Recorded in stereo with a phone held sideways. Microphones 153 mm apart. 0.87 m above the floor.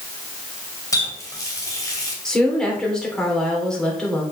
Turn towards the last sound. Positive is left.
turn(degrees=5)  # may be behind; listen again after turning